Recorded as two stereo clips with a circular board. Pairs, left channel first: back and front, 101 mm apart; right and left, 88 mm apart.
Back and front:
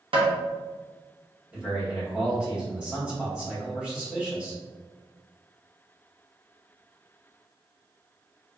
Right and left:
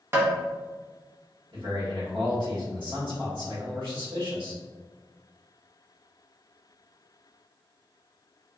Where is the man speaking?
80° left, 1.5 m.